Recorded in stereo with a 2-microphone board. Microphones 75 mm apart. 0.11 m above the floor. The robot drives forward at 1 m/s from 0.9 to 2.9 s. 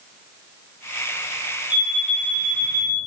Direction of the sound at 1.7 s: 75° left (ahead or behind).